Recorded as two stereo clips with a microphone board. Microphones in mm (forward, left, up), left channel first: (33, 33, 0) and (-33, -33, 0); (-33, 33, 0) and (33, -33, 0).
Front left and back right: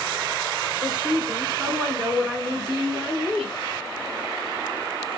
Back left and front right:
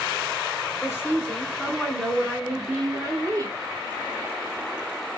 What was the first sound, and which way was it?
A woman speaking, 160° left.